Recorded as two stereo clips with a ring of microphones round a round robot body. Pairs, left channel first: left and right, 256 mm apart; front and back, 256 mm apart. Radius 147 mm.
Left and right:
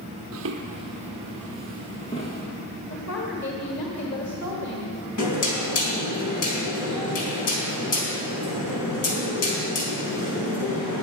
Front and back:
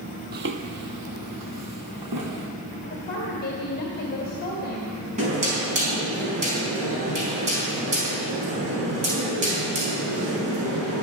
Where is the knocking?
115° left, 4 m.